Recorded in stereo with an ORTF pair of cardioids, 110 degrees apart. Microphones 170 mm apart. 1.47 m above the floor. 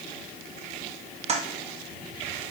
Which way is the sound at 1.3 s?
40° right.